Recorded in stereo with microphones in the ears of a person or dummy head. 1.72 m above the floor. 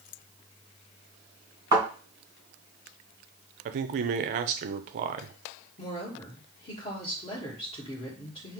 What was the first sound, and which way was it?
A thud, 20° right (ahead or behind).